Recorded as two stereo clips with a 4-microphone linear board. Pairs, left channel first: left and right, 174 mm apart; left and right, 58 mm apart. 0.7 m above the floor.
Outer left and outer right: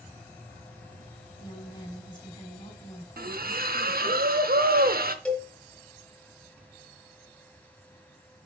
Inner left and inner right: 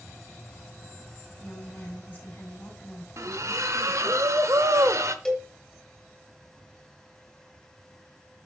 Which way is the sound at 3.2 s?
60° right (ahead or behind).